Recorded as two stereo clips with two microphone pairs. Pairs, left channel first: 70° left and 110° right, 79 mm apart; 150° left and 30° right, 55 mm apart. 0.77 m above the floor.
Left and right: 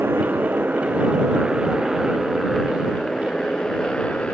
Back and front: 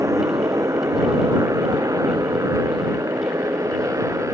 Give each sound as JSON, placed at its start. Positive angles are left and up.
{"t": 0.0, "sound": "a motorcycle", "azimuth_deg": -45}